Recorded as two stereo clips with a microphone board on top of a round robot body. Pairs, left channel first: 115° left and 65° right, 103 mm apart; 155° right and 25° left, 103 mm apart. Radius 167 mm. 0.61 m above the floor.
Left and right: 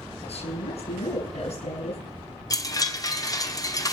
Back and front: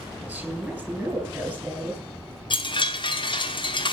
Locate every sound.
0.2 s a woman speaking: 100° left, 6 m
2.5 s a chime: 165° left, 1.4 m